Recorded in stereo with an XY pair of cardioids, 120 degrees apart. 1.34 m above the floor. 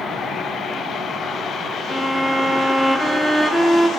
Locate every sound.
1.9 s a violin: 5° left, 0.6 m